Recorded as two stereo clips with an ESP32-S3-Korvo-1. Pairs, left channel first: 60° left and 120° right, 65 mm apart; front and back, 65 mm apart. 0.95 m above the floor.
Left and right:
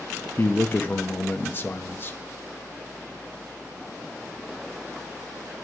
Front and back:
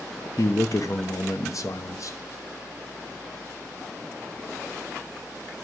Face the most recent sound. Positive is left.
turn(degrees=10)